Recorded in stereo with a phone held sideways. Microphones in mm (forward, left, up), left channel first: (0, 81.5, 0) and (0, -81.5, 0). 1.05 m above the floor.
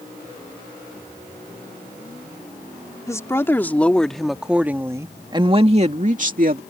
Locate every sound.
3.1 s a woman speaking: 20° left (ahead or behind); by 6.6 s 60° right (ahead or behind)